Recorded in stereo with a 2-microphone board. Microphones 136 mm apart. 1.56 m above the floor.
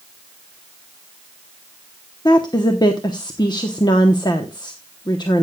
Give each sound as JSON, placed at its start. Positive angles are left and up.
{"t": 2.2, "sound": "a woman speaking", "side_deg": 30, "distance_m": 1.0}